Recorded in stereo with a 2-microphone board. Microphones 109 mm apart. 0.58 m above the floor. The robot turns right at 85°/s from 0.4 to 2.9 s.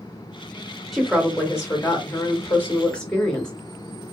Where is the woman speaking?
5° right, 1.1 m; by 3.5 s 165° left, 1.1 m.